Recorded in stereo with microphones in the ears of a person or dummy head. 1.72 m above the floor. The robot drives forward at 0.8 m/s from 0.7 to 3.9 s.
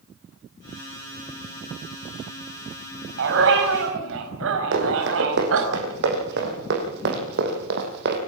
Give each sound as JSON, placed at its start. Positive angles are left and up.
{"t": 3.2, "sound": "a dog barking", "side_deg": -65, "distance_m": 5.0}
{"t": 4.7, "sound": "running footsteps", "side_deg": -60, "distance_m": 7.0}